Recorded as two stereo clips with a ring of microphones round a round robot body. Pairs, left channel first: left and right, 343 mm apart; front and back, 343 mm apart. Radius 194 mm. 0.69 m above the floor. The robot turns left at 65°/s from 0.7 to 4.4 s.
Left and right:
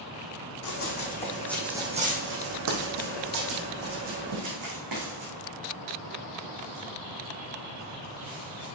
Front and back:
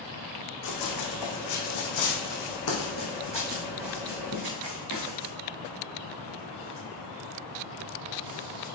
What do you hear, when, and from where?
0.6 s running footsteps: 45° left, 2.5 m; by 8.7 s 105° right, 4.5 m